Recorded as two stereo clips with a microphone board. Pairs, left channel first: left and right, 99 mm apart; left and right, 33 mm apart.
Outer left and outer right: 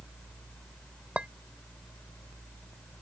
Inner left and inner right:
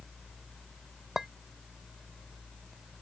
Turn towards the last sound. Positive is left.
turn(degrees=-15)  # may be behind; listen again after turning